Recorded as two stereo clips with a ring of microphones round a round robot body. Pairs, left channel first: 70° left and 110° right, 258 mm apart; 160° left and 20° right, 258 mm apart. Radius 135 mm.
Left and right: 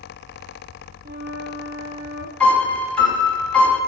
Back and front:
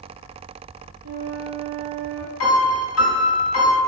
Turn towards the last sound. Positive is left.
turn(degrees=150)